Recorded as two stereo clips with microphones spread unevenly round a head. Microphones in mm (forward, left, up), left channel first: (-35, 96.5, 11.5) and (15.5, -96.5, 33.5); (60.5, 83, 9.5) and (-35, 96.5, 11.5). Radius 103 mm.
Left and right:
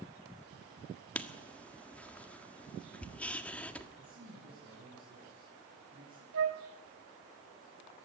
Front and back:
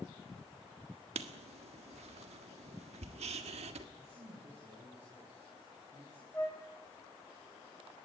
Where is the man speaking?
140° right, 9.5 m.